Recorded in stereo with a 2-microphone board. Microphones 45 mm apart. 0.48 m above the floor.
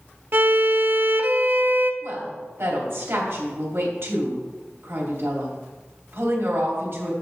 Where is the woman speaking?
60° right (ahead or behind), 3 m.